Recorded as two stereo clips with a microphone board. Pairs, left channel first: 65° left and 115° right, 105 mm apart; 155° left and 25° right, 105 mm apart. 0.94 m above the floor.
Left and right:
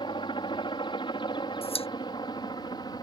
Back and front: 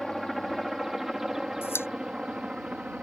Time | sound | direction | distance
0.0 | a helicopter | 70° left | ?
1.6 | a pop | 90° left | ?